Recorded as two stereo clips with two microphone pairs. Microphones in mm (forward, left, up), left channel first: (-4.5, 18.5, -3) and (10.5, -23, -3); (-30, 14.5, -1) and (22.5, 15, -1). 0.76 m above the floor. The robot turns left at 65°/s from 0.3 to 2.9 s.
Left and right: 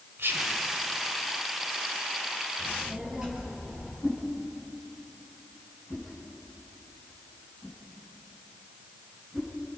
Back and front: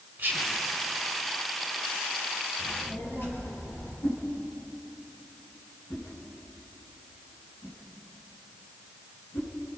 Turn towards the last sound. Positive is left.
turn(degrees=-155)